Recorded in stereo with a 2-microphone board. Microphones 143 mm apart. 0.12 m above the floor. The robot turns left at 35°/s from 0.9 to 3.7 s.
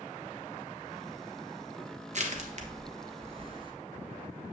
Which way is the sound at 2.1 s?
55° right (ahead or behind).